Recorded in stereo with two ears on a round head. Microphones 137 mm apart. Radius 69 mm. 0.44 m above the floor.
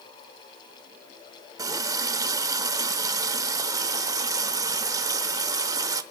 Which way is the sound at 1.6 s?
25° right (ahead or behind).